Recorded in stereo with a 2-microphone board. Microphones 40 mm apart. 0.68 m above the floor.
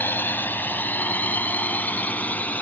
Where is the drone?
60° left (ahead or behind); by 2.6 s 40° left (ahead or behind).